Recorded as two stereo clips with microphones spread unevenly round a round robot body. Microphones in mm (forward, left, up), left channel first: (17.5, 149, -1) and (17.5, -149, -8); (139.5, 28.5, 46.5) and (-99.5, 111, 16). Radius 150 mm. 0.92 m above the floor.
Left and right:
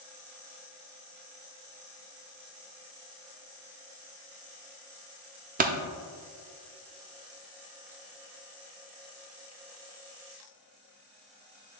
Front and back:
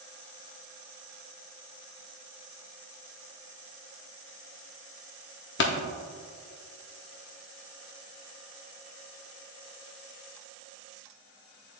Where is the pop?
35° right, 0.5 m.